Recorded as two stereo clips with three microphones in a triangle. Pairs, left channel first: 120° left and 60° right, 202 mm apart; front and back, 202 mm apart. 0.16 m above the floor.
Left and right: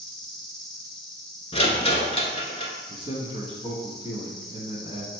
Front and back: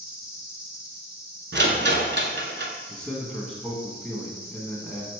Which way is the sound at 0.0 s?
35° left.